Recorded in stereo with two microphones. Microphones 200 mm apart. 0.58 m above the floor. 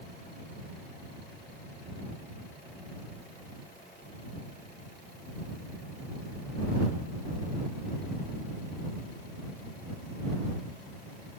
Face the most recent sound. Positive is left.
No sound to turn to.